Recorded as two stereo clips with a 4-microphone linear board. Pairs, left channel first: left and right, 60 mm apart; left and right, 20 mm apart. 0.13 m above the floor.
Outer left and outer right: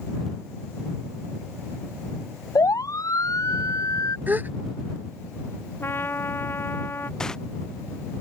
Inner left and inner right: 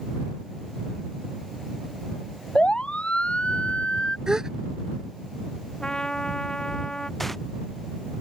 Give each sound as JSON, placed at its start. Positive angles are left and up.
{"t": 2.5, "sound": "a siren", "side_deg": 70}
{"t": 4.3, "sound": "a gasp", "side_deg": -35}
{"t": 5.8, "sound": "a trumpet", "side_deg": 40}
{"t": 7.2, "sound": "tearing paper", "side_deg": 10}